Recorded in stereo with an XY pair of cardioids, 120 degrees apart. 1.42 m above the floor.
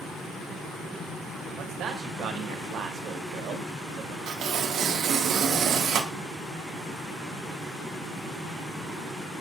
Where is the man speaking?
65° right, 0.7 m.